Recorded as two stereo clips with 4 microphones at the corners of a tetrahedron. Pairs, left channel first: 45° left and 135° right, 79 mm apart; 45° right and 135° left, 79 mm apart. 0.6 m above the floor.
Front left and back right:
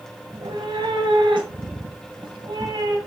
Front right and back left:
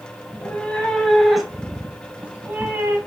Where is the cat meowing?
115° right, 1.5 m; by 3.0 s 160° right, 2 m.